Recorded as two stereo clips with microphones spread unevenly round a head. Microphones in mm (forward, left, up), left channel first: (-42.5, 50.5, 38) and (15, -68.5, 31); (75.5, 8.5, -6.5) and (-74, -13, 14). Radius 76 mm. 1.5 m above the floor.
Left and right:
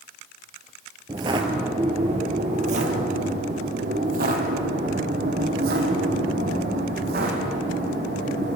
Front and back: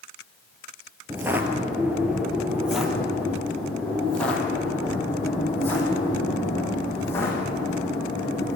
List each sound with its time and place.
1.1 s footsteps: 115° right, 1.8 m; by 8.6 s 70° right, 5 m